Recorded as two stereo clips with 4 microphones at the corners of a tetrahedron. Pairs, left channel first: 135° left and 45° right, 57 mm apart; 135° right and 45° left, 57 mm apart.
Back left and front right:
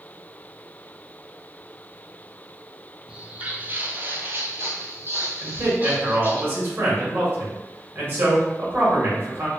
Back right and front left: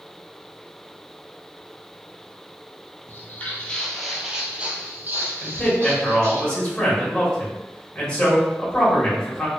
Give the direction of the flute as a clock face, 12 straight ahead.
I don't hear a flute.